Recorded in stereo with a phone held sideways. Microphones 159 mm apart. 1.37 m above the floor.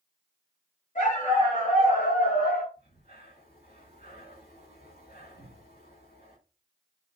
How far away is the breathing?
About 5 m.